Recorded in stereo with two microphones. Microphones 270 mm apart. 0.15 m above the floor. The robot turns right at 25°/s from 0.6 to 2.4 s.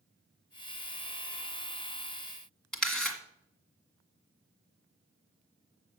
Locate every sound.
2.7 s a camera shutter: centre (ahead or behind), 1.7 m